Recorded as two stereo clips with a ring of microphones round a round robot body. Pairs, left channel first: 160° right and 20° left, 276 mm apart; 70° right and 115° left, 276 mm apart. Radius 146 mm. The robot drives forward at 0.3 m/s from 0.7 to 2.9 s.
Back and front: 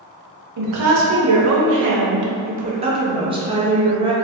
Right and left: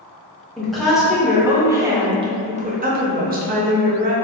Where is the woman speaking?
20° left, 0.9 m; by 4.1 s 80° left, 0.5 m.